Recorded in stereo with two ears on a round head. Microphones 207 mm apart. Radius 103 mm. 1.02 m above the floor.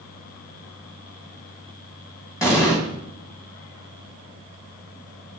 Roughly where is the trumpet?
No trumpet in this recording.